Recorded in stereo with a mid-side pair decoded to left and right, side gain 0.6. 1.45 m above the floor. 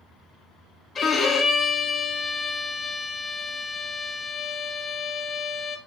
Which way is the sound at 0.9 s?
35° left.